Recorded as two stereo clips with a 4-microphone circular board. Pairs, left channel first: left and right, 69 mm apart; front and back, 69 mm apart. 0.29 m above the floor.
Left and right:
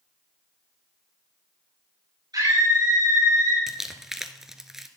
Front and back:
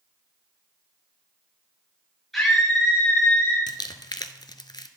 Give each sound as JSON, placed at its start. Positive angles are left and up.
{"t": 2.3, "sound": "a scream", "azimuth_deg": -90, "distance_m": 5.0}
{"t": 3.7, "sound": "crumpling", "azimuth_deg": -5, "distance_m": 0.6}